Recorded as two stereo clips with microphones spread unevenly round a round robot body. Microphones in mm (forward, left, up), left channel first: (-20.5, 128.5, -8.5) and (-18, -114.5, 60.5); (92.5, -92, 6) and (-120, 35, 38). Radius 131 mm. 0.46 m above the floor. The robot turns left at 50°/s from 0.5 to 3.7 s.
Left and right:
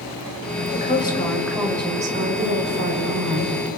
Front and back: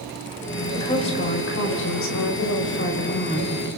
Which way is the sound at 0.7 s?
45° left.